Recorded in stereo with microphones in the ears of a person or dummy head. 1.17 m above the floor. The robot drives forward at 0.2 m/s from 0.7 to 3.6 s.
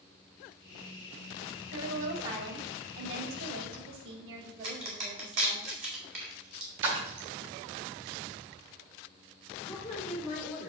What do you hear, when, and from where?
1.7 s a woman speaking: 75° right (ahead or behind), 2 m; by 5.6 s 85° right, 2.0 m
4.6 s a crack: 65° right (ahead or behind), 2 m
6.8 s a splash: 70° right (ahead or behind), 1.9 m
9.6 s a woman speaking: 5° left (ahead or behind), 2.5 m